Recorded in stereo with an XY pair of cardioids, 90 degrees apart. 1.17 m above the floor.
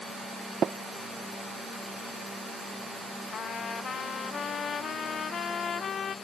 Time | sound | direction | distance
0.6 | tapping | 55° right | ?
3.3 | a trumpet | 60° left | ?